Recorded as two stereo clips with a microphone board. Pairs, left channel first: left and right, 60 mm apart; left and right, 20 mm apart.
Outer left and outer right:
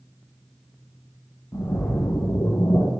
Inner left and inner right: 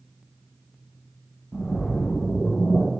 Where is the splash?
65° left (ahead or behind), 2.5 m.